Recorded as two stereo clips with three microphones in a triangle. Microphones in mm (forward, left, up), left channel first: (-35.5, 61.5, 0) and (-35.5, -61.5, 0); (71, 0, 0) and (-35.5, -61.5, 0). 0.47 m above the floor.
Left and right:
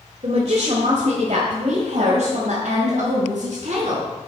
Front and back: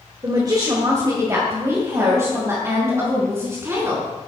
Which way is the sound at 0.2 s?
100° right.